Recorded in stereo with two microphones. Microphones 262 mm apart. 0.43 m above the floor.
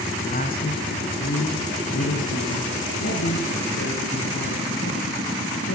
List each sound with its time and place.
0.2 s a man speaking: 35° left (ahead or behind), 4 m; by 5.8 s 70° left (ahead or behind), 9 m